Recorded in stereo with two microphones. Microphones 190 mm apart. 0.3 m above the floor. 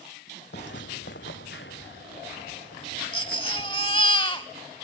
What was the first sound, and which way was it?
Footsteps, 70° left (ahead or behind).